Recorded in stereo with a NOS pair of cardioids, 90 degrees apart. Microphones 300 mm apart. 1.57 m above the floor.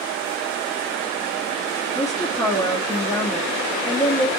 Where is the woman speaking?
10° left, 0.7 m.